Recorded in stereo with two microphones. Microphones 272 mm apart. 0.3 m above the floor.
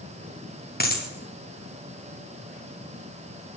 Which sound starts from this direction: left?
A dropped coin, at 0.8 s.